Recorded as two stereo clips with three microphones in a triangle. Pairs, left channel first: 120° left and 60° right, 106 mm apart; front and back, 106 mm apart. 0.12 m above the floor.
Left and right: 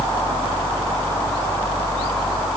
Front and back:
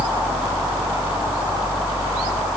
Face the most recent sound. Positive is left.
No sound to turn to.